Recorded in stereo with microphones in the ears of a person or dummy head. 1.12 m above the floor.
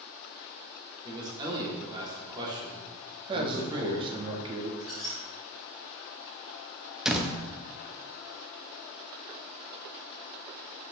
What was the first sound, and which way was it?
A man speaking, 20° right (ahead or behind).